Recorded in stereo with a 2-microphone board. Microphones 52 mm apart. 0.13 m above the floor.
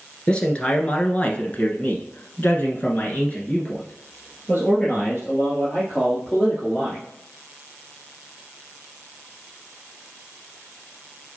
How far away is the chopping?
No chopping in this recording.